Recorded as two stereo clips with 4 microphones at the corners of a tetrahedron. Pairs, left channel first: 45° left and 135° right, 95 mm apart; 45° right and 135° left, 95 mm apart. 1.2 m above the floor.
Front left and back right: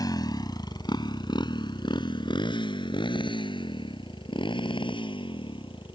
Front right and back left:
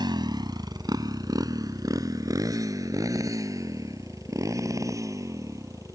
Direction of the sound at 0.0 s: 95° left.